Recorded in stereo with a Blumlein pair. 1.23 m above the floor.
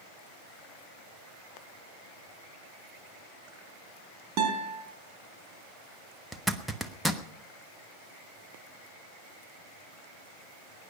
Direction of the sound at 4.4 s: 35° right.